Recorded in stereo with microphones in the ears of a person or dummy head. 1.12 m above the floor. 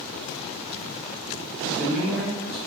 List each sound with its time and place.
1.6 s a man speaking: 5° left (ahead or behind), 1.3 m